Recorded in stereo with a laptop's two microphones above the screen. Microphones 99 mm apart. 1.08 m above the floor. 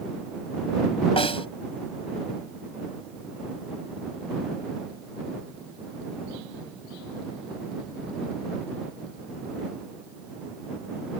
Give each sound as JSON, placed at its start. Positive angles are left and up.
{"t": 1.2, "sound": "a snare drum", "side_deg": 70}